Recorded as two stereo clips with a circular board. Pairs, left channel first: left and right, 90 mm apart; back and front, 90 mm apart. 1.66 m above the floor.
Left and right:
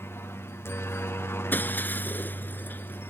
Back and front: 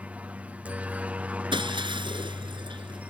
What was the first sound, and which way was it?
A helicopter, 60° left.